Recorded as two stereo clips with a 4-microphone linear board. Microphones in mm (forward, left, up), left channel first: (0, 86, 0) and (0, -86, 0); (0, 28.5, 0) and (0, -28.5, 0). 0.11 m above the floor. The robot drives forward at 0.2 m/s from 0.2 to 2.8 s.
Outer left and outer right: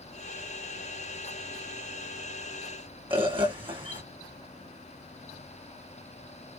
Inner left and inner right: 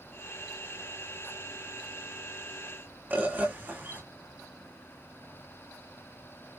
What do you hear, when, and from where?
3.1 s a bird: 30° right (ahead or behind), 1.3 m